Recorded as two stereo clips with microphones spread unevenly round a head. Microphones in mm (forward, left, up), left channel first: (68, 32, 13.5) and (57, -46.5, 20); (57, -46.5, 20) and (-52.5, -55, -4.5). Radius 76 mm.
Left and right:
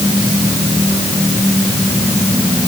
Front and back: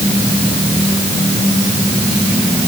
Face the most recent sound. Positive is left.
No sound to turn to.